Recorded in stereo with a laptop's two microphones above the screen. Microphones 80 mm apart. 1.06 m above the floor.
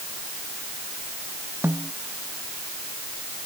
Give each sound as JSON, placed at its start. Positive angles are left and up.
{"t": 1.6, "sound": "a snare drum", "side_deg": -30}